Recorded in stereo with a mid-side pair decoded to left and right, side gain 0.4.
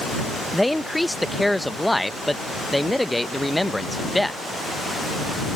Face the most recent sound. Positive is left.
turn(degrees=5)